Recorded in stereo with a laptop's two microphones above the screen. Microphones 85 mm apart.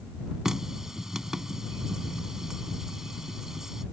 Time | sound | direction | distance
0.5 | a running tap | 5° right (ahead or behind) | ?